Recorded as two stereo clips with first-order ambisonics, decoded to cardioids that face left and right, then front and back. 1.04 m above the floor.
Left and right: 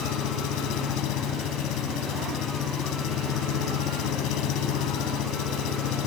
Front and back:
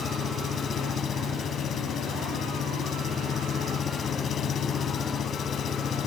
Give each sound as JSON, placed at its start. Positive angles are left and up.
{"t": 0.0, "sound": "an engine running", "azimuth_deg": 60}